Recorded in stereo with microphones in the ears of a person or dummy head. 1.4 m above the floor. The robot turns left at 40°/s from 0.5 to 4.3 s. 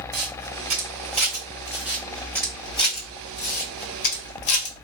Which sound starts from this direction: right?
A camera shutter, at 0.1 s.